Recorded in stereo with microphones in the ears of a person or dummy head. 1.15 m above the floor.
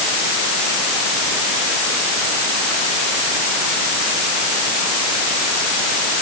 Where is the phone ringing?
No phone ringing in this recording.